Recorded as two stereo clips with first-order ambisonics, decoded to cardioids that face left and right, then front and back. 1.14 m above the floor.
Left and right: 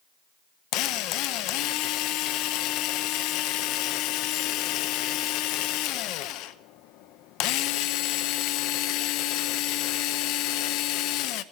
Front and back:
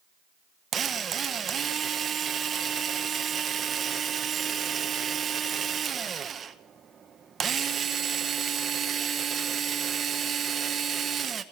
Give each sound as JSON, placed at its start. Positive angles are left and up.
{"t": 0.7, "sound": "a drill", "azimuth_deg": 115, "distance_m": 0.8}